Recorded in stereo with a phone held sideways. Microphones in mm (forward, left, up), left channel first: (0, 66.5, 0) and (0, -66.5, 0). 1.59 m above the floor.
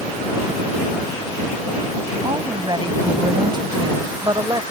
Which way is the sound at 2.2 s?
35° right (ahead or behind).